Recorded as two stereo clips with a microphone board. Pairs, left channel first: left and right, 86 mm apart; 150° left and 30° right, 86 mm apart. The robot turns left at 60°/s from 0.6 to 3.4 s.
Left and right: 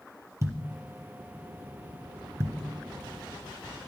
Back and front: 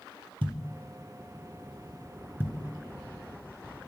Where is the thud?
35° right, 1.9 m; by 2.5 s 155° right, 1.9 m.